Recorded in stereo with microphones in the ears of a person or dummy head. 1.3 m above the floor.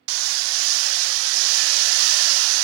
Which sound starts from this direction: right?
Hammering, at 0.1 s.